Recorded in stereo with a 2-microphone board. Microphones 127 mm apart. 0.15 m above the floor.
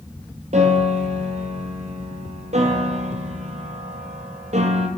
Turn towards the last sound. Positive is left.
turn(degrees=-70)  # may be behind; listen again after turning